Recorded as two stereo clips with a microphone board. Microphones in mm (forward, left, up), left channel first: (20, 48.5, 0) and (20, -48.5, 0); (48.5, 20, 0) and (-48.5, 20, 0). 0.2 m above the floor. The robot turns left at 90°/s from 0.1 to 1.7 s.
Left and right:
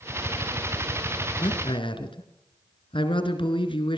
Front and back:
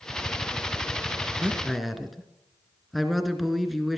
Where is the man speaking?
120° left, 2.5 m; by 4.0 s 90° left, 2.5 m.